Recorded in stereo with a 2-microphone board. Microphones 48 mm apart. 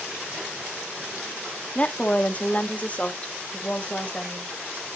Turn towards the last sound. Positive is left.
turn(degrees=25)  # may be behind; listen again after turning